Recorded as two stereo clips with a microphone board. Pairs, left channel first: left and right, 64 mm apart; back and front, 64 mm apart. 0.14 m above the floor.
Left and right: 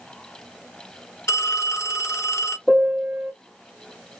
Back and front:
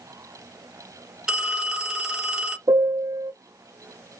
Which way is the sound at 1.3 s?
80° left.